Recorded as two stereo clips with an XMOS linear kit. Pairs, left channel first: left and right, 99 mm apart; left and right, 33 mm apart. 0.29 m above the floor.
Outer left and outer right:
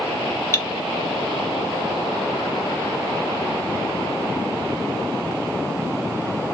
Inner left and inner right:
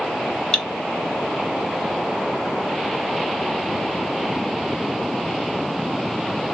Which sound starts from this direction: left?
Cutlery clinking, at 0.5 s.